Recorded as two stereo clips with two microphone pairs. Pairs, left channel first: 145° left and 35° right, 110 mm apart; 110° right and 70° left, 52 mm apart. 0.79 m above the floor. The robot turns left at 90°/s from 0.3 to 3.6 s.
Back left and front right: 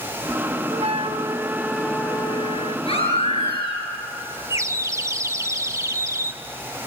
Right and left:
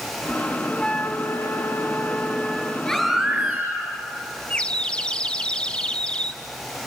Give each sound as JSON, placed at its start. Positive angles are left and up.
{"t": 0.7, "sound": "a flute", "azimuth_deg": -30, "distance_m": 0.8}
{"t": 2.9, "sound": "a baby crying", "azimuth_deg": 175, "distance_m": 7.5}
{"t": 4.5, "sound": "a bird", "azimuth_deg": -60, "distance_m": 0.7}